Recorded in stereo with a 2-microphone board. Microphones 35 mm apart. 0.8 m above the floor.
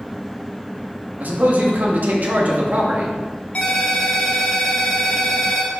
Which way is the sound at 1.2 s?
60° right (ahead or behind).